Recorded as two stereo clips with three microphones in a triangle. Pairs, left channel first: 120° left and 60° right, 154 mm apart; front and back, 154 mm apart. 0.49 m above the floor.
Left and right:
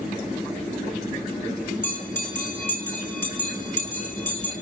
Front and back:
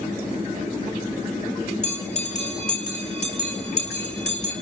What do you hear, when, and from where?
1.8 s a bell: 45° left, 4.5 m